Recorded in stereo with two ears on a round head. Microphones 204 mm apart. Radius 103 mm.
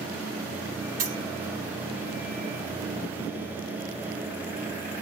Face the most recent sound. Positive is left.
turn(degrees=-60)  # may be behind; listen again after turning